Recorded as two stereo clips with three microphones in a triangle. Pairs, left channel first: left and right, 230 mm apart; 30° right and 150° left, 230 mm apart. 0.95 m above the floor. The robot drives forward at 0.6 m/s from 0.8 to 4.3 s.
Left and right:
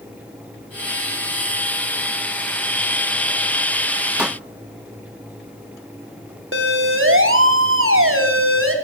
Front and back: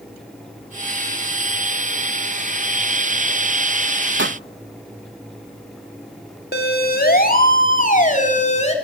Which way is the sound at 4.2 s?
175° right.